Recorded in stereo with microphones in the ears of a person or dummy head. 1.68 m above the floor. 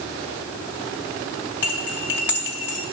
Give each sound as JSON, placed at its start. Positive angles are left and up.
{"t": 1.6, "sound": "cutlery clinking", "side_deg": 15, "distance_m": 0.8}